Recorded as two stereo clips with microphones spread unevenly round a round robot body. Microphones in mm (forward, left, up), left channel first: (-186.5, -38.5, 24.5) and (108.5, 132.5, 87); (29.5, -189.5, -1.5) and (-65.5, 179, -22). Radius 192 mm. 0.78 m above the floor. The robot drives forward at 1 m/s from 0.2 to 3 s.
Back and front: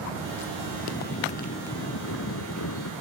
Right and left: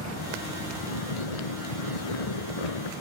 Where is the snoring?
75° right; by 2.9 s 95° right.